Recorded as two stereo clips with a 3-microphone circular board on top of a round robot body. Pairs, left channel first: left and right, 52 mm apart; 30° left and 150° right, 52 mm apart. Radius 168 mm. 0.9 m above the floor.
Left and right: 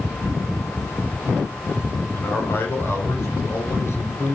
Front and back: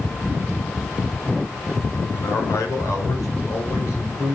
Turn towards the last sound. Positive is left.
turn(degrees=60)